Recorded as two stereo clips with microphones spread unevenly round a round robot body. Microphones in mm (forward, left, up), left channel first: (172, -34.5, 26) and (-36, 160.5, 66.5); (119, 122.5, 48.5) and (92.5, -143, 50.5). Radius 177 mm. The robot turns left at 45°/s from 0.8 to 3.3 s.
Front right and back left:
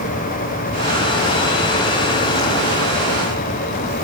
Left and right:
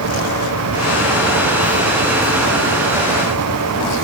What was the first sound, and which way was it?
Only background noise.